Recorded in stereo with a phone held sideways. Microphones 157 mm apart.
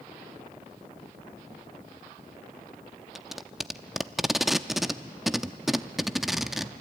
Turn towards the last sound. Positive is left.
turn(degrees=0)  # may be behind; listen again after turning